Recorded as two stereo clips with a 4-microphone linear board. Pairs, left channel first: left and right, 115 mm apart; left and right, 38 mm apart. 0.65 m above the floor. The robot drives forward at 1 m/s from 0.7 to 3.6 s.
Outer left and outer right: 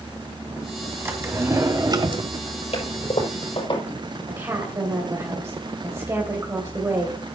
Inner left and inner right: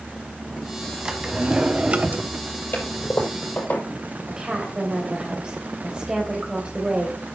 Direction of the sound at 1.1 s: 20° right (ahead or behind).